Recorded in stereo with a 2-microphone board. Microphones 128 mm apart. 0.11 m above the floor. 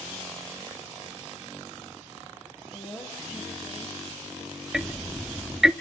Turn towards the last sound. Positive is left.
turn(degrees=-5)  # may be behind; listen again after turning